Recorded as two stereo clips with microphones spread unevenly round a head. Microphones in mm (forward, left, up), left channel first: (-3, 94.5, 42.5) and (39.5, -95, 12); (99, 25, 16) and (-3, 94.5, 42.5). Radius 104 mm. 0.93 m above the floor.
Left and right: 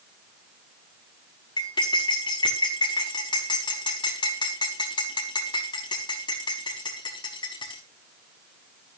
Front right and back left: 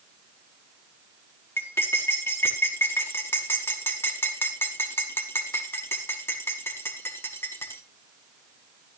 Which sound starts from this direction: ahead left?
Cutlery clinking, at 1.6 s.